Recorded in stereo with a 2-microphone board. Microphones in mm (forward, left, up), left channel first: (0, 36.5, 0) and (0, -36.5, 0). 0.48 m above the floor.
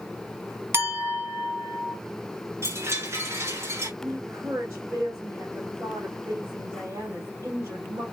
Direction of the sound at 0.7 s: 35° right (ahead or behind).